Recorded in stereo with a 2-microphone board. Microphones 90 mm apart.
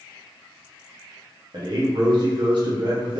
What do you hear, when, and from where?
1.5 s a man speaking: 60° right (ahead or behind), 1.0 m